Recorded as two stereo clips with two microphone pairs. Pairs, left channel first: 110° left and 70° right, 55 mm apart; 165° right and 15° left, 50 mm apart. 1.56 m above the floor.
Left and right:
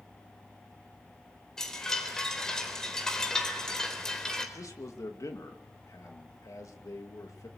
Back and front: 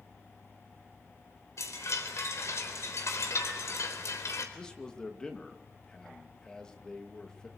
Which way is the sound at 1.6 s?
170° right.